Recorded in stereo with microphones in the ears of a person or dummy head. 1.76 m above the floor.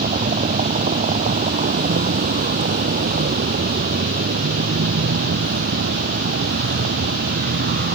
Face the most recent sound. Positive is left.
turn(degrees=-45)  # may be behind; listen again after turning